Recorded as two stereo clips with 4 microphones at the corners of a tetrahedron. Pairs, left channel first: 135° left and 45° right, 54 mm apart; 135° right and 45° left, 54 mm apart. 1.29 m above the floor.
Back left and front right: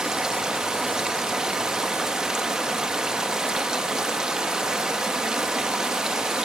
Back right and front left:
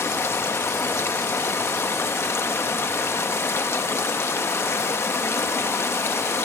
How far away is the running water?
About 0.9 m.